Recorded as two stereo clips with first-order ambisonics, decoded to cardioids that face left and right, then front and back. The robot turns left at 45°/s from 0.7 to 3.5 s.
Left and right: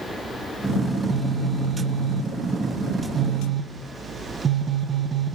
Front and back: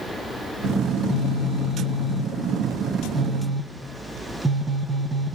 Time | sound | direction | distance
0.9 | a phone buzzing | straight ahead | 0.9 m